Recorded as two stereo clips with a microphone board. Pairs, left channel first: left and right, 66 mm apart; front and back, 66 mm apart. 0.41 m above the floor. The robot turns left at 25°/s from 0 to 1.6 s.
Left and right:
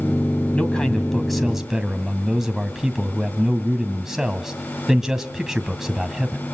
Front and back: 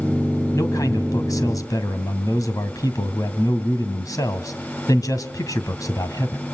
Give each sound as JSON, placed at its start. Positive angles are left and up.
{"t": 0.5, "sound": "a man speaking", "azimuth_deg": 20, "distance_m": 2.0}